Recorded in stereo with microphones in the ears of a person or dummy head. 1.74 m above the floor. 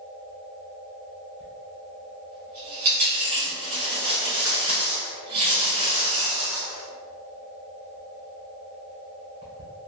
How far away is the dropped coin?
About 1.5 m.